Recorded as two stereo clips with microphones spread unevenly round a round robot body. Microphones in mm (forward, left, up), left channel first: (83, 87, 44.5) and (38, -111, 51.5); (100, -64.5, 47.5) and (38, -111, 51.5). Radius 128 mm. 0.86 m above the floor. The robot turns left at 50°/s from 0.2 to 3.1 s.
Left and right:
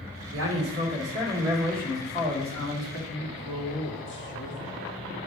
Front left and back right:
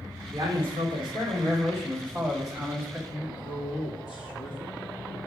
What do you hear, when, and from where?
0.3 s a man speaking: 125° right, 2.5 m; by 3.0 s 100° left, 2.5 m
3.1 s a man speaking: 45° left, 1.6 m